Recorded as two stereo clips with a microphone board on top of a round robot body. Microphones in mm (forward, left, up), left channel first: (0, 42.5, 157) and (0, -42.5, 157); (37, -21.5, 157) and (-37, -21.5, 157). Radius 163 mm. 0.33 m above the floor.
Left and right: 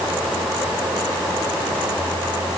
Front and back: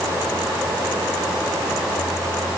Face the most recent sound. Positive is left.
No sound to turn to.